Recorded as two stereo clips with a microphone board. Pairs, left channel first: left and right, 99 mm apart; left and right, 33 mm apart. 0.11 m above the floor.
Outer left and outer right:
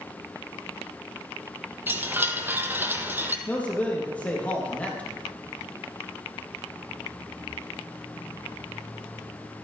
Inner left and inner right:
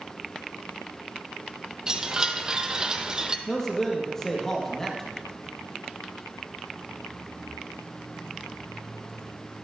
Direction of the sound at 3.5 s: 15° left (ahead or behind).